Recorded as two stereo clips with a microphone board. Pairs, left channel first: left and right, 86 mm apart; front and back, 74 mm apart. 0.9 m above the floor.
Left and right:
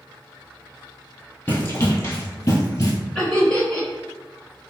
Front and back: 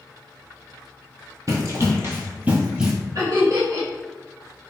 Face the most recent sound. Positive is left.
turn(degrees=170)